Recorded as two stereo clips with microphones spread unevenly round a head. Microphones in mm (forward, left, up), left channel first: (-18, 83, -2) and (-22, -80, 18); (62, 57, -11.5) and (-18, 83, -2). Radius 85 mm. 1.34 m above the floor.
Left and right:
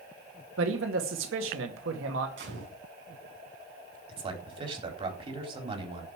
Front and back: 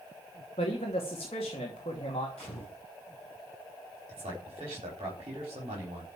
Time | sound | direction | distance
0.6 | a man speaking | 75° right | 2 m
2.4 | a gunshot | 105° right | 6 m
4.1 | a man speaking | 150° right | 4 m